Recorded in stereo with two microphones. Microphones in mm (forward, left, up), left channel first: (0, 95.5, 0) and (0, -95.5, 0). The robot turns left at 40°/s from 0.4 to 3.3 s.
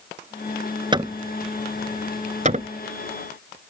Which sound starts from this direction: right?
Hammering, at 0.9 s.